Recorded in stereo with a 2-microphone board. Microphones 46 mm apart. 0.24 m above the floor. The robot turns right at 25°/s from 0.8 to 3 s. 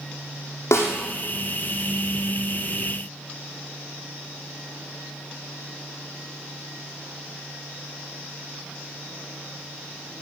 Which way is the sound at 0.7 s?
80° left.